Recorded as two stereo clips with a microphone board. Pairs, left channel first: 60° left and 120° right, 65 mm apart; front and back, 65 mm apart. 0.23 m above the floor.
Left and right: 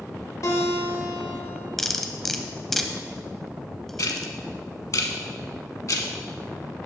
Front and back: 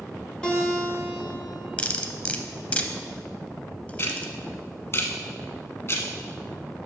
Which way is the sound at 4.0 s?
40° left.